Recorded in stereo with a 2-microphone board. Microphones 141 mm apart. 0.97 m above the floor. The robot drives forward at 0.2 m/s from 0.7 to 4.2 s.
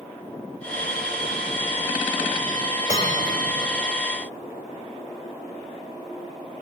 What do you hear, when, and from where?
2.9 s a bell: 65° left (ahead or behind), 4 m